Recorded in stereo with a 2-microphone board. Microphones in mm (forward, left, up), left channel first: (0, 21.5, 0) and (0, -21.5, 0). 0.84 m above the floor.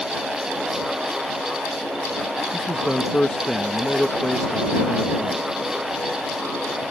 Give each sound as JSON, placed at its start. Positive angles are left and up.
{"t": 2.5, "sound": "a man speaking", "side_deg": 15}